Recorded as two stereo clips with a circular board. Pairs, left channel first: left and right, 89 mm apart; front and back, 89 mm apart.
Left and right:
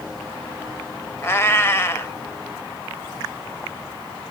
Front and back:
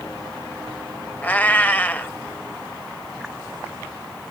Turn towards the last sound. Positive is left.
turn(degrees=55)